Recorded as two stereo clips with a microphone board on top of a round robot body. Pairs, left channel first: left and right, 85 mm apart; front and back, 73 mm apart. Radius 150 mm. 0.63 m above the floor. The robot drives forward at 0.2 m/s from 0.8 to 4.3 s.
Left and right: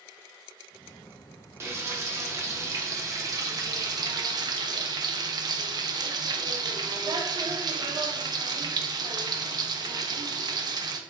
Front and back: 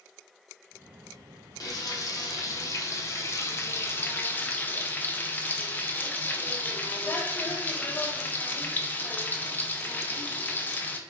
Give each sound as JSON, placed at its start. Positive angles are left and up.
{"t": 1.6, "sound": "frying", "azimuth_deg": -30, "distance_m": 1.0}